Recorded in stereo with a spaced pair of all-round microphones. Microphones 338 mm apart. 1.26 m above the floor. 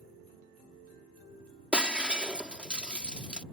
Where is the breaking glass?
5° right (ahead or behind).